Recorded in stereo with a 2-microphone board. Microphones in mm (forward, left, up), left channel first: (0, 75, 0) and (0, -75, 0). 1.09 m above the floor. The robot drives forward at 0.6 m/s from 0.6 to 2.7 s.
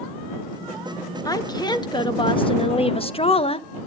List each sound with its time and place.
1.2 s a woman speaking: 25° left (ahead or behind), 1.9 m; by 3.9 s 40° left (ahead or behind), 1.2 m